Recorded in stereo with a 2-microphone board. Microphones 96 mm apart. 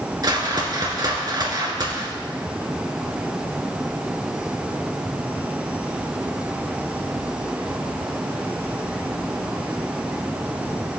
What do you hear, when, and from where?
0.2 s a whoosh: 45° right (ahead or behind), 2 m